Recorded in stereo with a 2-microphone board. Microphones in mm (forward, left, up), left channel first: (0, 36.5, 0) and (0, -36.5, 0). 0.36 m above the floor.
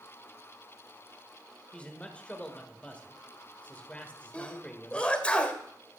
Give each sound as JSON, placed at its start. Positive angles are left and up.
{"t": 1.7, "sound": "a man speaking", "side_deg": 15, "distance_m": 1.5}
{"t": 4.3, "sound": "a sneeze", "side_deg": 15, "distance_m": 1.7}